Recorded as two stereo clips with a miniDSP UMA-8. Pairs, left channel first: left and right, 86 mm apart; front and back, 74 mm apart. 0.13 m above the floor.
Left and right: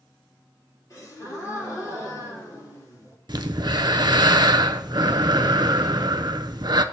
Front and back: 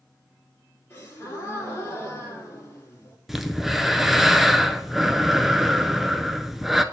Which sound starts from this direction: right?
Breathing, at 3.3 s.